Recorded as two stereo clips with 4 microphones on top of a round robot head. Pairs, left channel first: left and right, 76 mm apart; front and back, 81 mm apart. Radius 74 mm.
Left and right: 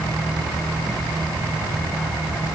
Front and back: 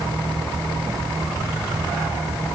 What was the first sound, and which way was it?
Only background noise.